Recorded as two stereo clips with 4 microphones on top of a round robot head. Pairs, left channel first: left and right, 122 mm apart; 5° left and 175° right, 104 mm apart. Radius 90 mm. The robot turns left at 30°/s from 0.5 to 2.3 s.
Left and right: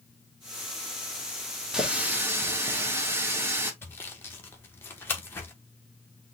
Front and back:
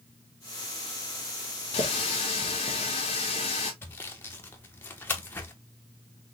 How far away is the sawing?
About 0.7 m.